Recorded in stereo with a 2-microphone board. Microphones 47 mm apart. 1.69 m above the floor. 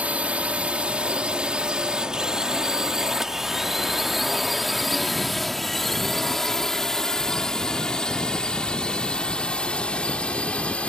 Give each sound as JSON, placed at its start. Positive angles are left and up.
{"t": 0.0, "sound": "a drone", "side_deg": -30}